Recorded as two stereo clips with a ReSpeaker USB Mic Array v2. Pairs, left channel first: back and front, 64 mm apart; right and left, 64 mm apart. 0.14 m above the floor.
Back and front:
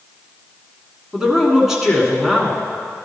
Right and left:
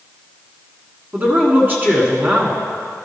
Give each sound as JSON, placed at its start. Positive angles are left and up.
{"t": 1.1, "sound": "a man speaking", "azimuth_deg": 75, "distance_m": 1.7}